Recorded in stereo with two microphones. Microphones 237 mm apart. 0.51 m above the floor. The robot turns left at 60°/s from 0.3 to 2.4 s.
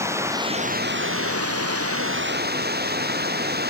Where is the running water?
10° right; by 3.7 s 140° right.